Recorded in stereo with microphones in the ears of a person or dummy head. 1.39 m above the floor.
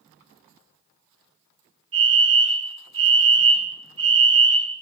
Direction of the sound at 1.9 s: 70° right (ahead or behind).